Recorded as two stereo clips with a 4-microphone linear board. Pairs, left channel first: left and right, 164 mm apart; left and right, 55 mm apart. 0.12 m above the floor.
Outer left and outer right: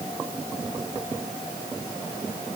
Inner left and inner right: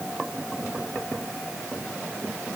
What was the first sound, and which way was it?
Only background noise.